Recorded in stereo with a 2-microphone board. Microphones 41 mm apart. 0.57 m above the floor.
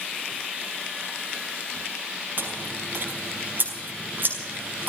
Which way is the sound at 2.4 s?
45° right (ahead or behind).